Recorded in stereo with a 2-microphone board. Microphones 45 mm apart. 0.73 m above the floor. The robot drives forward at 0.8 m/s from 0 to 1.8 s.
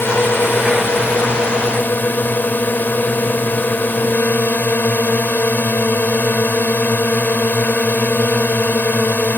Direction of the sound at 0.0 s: 55° left (ahead or behind).